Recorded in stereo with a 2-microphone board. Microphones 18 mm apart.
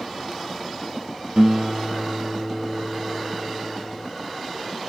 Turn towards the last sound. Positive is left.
turn(degrees=-55)  # may be behind; listen again after turning